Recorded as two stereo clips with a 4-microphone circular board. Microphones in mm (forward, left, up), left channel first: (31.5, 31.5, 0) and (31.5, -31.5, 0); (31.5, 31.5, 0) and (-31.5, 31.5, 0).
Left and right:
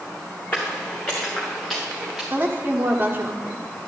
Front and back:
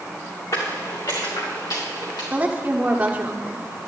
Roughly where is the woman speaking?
Behind right.